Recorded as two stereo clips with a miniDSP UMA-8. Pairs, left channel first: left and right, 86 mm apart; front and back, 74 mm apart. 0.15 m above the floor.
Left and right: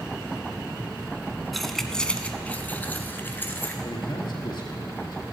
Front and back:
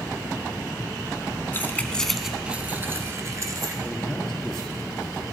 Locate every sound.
1.5 s keys jangling: straight ahead, 0.8 m; by 3.7 s 150° left, 1.4 m
3.8 s a man speaking: 80° left, 2.5 m